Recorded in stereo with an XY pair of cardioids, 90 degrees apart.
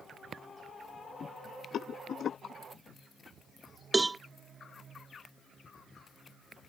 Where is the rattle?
70° left.